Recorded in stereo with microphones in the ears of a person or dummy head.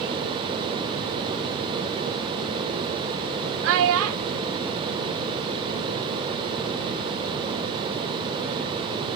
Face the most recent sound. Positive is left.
turn(degrees=-80)